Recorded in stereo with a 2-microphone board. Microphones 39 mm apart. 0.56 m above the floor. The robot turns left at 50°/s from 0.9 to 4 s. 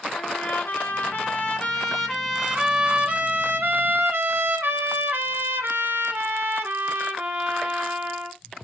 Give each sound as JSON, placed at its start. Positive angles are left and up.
{"t": 0.1, "sound": "a trumpet", "azimuth_deg": 65, "distance_m": 1.0}